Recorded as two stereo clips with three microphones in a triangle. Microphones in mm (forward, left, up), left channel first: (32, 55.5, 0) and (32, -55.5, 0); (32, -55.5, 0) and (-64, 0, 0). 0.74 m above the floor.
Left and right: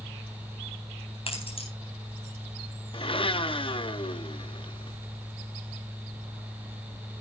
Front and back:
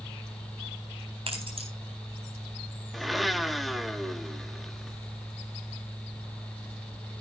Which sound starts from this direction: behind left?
Keys jangling, at 1.3 s.